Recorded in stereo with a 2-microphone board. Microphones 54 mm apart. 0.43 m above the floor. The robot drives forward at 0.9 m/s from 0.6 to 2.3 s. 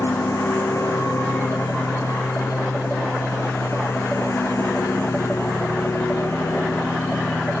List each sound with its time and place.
0.0 s a lawn mower: 75° left (ahead or behind); by 7.6 s 65° left (ahead or behind)